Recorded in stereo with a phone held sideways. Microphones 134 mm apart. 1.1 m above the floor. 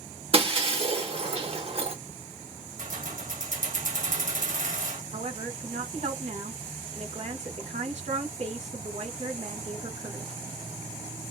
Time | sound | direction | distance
0.3 | breaking glass | 45° right (ahead or behind) | 1.0 m
2.8 | keys jangling | 75° right (ahead or behind) | 1.1 m
5.1 | a woman speaking | 55° right (ahead or behind) | 1.4 m